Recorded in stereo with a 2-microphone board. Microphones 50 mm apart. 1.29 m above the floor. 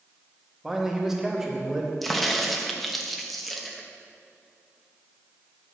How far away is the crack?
About 0.8 m.